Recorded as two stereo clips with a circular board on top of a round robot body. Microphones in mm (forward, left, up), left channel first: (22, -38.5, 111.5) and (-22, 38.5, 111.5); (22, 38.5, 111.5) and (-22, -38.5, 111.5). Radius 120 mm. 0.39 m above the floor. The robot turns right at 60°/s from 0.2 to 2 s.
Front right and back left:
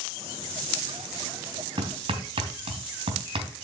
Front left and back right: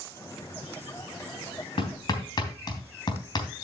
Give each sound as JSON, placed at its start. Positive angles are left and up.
{"t": 1.8, "sound": "hammering", "azimuth_deg": 90, "distance_m": 3.0}